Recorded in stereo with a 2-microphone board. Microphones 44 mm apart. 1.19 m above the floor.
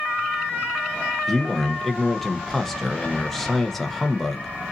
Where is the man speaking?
10° left (ahead or behind), 1.0 m.